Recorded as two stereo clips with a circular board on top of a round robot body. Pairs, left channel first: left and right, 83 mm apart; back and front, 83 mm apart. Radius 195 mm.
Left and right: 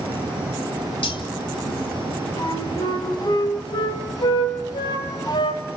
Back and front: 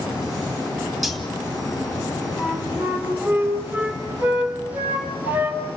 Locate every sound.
1.0 s cutlery clinking: 85° left, 2.5 m
2.4 s a flute: 65° left, 3.5 m